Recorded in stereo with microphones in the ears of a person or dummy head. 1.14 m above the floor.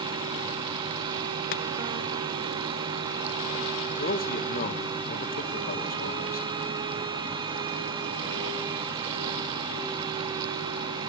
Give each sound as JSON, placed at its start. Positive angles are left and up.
{"t": 0.0, "sound": "a fan", "side_deg": -20, "distance_m": 1.6}
{"t": 1.5, "sound": "chopping", "side_deg": 50, "distance_m": 0.6}
{"t": 3.9, "sound": "a man speaking", "side_deg": 45, "distance_m": 1.2}